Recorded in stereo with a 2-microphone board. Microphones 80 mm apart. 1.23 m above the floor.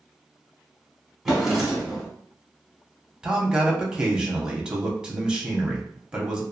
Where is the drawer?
5° right (ahead or behind), 1.0 m.